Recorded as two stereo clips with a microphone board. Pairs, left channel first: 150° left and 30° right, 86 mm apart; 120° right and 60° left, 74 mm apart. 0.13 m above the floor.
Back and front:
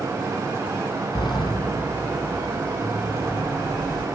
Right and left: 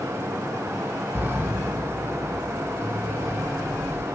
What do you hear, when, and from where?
1.1 s a sliding door: 120° left, 1.4 m